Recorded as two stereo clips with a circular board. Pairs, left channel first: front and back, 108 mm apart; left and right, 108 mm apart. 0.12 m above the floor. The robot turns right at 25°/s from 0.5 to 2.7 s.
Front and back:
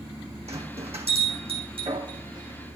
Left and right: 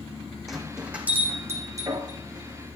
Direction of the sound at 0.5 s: Straight behind.